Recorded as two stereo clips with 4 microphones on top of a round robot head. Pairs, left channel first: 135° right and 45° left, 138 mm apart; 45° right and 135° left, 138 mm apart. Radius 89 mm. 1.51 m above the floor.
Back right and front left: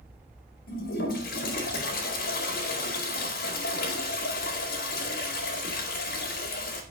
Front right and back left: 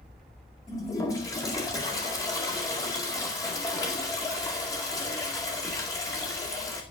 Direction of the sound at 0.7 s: 115° right.